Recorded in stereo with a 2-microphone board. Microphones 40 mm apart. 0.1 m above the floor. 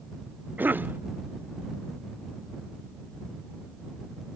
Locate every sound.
0.6 s a cough: 50° right (ahead or behind)